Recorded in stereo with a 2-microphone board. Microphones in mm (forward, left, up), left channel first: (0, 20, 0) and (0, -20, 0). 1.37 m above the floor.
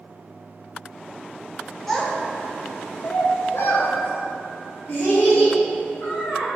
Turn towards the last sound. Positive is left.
turn(degrees=50)  # may be behind; listen again after turning